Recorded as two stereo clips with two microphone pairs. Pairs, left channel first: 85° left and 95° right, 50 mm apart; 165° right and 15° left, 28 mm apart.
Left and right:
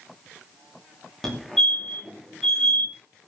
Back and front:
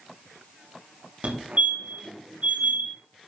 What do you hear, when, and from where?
1.2 s a fire alarm: 5° left, 2.5 m